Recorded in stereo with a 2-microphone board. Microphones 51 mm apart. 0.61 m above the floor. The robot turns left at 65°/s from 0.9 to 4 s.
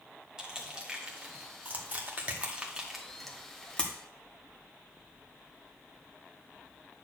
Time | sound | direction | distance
0.4 | crushing | 15° right (ahead or behind) | 1.4 m